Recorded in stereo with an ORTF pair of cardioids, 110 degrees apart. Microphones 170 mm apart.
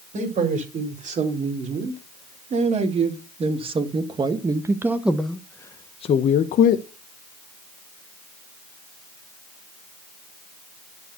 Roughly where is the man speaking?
Ahead right.